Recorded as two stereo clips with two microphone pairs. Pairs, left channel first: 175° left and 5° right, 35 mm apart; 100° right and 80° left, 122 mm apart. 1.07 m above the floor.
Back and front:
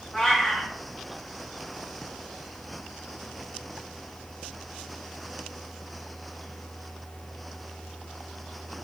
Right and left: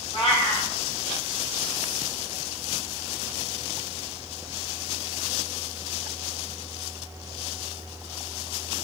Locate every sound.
0.1 s a cat meowing: 110° right, 1.8 m